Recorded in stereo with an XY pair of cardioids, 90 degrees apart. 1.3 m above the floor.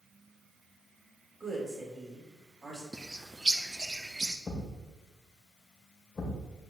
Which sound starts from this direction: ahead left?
A thud, at 4.5 s.